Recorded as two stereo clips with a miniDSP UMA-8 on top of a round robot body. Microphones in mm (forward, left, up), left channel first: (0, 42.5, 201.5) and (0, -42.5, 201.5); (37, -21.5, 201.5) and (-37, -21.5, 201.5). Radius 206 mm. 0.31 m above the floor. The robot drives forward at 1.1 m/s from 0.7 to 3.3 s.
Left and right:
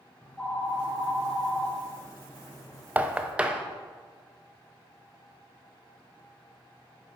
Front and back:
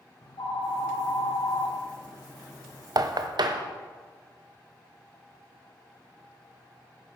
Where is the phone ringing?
15° left, 3 m; by 2.9 s 50° left, 1.0 m.